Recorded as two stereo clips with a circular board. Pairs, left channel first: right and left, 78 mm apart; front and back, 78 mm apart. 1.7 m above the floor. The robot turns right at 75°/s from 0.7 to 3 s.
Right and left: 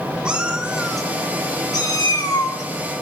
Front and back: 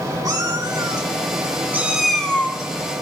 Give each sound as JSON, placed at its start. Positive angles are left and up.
{"t": 0.2, "sound": "a cat meowing", "azimuth_deg": 165, "distance_m": 1.9}